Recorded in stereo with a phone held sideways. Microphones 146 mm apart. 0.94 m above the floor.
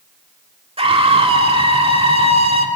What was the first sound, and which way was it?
A scream, 40° right (ahead or behind).